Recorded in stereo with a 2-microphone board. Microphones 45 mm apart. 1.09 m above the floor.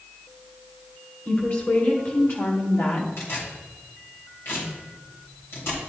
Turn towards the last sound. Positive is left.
turn(degrees=65)  # may be behind; listen again after turning